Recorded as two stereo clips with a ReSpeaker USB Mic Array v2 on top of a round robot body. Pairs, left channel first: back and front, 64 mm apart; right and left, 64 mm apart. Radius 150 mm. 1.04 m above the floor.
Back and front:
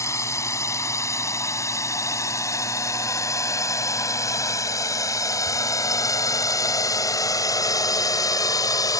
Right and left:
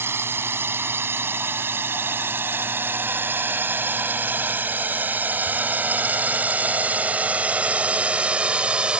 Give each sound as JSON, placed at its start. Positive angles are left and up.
{"t": 0.0, "sound": "a drone", "azimuth_deg": 140}